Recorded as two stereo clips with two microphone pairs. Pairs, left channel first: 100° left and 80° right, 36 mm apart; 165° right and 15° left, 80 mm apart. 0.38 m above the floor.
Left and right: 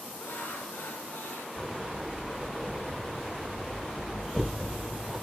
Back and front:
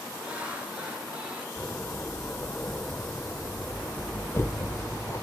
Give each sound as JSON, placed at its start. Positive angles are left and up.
{"t": 0.2, "sound": "laughter", "azimuth_deg": 85, "distance_m": 5.5}
{"t": 1.6, "sound": "a door slam", "azimuth_deg": -165, "distance_m": 1.1}